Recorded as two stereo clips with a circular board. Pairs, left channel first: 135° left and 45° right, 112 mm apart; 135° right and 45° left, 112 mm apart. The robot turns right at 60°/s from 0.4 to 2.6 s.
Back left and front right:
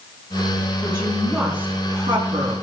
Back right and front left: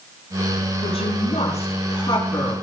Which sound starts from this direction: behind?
A woman speaking, at 0.8 s.